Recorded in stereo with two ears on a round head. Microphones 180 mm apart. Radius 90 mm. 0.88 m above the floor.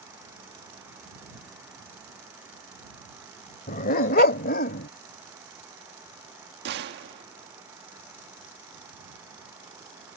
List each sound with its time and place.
3.7 s a dog barking: 45° left (ahead or behind); by 4.9 s 50° left (ahead or behind)
6.7 s a gunshot: 60° right (ahead or behind)